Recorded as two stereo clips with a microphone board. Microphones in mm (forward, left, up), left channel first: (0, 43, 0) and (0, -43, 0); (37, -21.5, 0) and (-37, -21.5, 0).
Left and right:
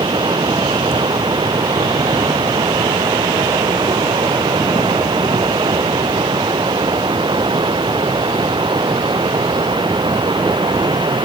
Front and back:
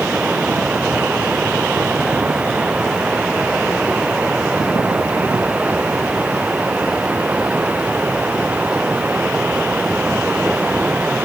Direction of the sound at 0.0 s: 105° right.